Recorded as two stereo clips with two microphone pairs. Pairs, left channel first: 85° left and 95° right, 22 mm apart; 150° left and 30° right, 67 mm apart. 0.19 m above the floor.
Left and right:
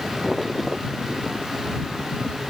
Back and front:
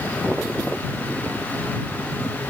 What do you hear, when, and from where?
Only background noise.